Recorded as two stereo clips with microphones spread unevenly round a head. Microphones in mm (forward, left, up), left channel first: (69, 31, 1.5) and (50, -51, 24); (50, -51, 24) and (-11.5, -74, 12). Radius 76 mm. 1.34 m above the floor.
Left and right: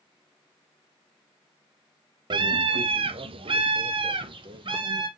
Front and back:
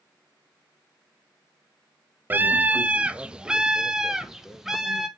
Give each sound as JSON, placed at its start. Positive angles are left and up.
{"t": 2.3, "sound": "a scream", "azimuth_deg": -125, "distance_m": 0.6}